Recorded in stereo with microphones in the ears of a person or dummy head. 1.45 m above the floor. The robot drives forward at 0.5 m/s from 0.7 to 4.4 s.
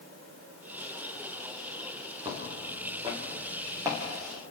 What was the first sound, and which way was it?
Footsteps, 30° right (ahead or behind).